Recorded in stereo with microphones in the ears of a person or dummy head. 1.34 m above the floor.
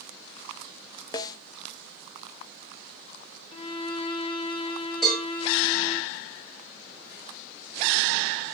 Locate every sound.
1.1 s a snare drum: 20° left (ahead or behind), 0.6 m
3.5 s a violin: 30° left (ahead or behind), 1.1 m
5.0 s a cowbell: centre (ahead or behind), 5.5 m